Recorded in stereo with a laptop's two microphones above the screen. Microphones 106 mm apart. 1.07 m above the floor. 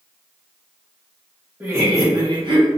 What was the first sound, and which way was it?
Laughter, 20° right (ahead or behind).